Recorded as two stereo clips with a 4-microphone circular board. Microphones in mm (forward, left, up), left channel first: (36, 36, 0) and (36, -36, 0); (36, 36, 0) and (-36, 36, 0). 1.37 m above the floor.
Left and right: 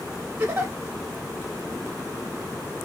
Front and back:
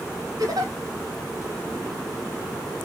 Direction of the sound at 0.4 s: 155° right.